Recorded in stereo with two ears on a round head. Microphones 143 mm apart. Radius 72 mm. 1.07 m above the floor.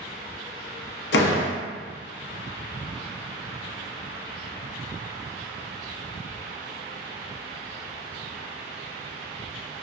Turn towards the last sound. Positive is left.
turn(degrees=75)  # may be behind; listen again after turning